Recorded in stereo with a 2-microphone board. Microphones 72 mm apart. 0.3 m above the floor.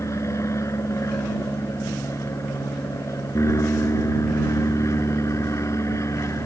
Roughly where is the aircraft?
Left.